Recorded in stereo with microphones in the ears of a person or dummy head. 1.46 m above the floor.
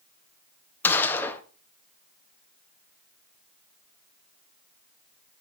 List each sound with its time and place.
0.8 s a gunshot: 15° left (ahead or behind), 1.0 m